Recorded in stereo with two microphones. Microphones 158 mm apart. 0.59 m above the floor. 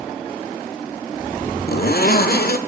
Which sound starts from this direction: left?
A zipper, at 1.7 s.